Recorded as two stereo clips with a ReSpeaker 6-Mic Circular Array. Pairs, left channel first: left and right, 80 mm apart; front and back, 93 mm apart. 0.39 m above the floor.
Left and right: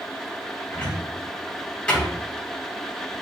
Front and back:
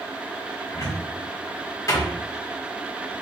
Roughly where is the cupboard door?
Ahead.